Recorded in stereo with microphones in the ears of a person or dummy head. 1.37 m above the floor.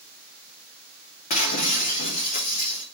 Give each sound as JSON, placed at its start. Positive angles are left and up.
{"t": 1.3, "sound": "breaking glass", "side_deg": 45, "distance_m": 0.9}